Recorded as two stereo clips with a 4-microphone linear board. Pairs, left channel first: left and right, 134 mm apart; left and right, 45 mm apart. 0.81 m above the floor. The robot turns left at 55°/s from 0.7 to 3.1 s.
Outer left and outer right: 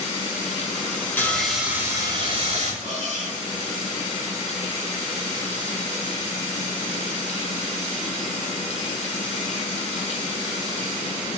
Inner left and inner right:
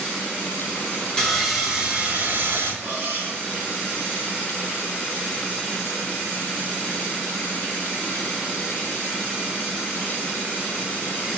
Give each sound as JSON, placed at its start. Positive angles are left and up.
{"t": 1.2, "sound": "sawing", "azimuth_deg": 15, "distance_m": 2.5}
{"t": 2.8, "sound": "cutlery clinking", "side_deg": -50, "distance_m": 5.0}